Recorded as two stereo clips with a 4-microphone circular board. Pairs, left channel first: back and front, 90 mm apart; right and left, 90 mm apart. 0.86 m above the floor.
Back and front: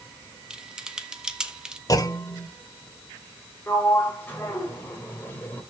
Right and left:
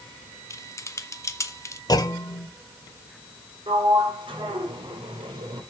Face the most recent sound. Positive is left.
turn(degrees=110)